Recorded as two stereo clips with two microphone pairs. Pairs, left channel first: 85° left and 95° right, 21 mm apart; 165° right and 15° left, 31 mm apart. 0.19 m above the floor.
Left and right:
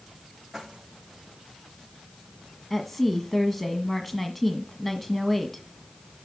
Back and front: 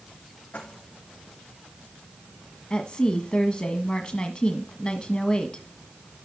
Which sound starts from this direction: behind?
Keys jangling, at 0.5 s.